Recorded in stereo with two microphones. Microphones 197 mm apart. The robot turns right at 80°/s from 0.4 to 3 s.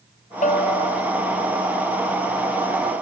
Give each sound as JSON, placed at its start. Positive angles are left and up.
{"t": 0.4, "sound": "a bell", "azimuth_deg": 45}